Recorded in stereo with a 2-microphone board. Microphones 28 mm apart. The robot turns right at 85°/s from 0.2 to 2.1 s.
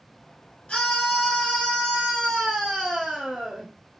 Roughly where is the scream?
Ahead left.